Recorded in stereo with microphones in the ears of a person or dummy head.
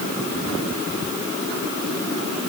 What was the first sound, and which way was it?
Only background noise.